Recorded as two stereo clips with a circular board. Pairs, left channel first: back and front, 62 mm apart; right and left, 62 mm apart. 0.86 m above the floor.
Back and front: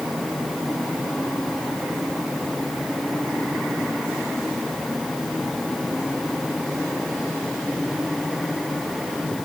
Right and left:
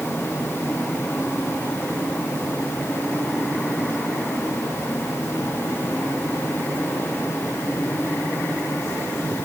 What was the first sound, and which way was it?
Only background noise.